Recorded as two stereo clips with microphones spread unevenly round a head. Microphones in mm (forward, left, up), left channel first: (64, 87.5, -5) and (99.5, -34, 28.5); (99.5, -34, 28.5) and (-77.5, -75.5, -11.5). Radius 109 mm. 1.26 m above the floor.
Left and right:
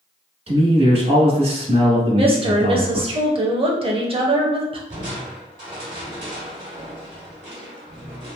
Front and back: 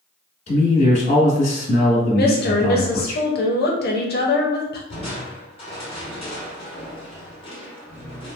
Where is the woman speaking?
25° right, 1.0 m.